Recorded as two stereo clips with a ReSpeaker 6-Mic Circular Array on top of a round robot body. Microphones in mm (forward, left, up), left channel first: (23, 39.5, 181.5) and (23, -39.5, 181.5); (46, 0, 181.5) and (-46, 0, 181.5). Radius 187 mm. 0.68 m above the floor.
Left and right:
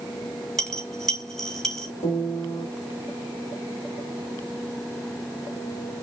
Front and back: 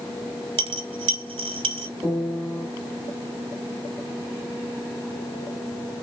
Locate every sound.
0.6 s a dropped coin: 175° left, 0.8 m
2.0 s a piano: 70° left, 1.8 m